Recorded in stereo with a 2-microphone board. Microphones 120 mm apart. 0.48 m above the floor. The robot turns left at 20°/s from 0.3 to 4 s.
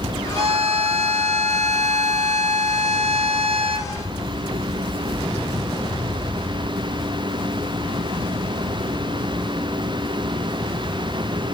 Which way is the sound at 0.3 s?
55° right.